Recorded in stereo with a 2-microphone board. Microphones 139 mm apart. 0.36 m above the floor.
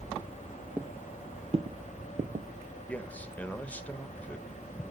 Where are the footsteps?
10° right (ahead or behind), 0.8 m; by 2.5 s 65° right (ahead or behind), 0.9 m.